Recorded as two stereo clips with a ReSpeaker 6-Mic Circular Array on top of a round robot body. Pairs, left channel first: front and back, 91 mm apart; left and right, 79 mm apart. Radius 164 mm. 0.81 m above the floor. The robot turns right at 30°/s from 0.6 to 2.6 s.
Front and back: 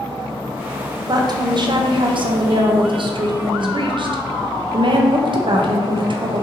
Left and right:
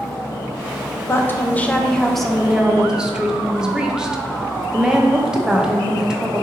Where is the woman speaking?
145° left, 0.5 m; by 6.4 s 170° right, 0.5 m.